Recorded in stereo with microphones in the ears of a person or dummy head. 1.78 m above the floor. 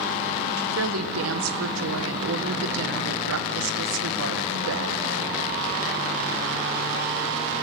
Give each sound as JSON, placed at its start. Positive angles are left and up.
{"t": 0.6, "sound": "a woman speaking", "side_deg": -80, "distance_m": 1.9}